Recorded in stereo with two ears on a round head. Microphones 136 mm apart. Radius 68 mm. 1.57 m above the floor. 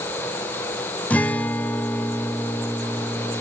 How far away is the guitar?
About 0.6 m.